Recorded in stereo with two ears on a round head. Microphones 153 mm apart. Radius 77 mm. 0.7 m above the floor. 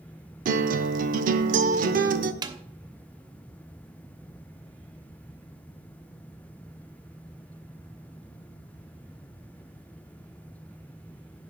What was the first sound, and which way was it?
A guitar, 50° right (ahead or behind).